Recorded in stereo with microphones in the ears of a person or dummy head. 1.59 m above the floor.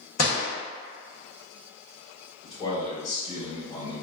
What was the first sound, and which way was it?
A gunshot, 45° left (ahead or behind).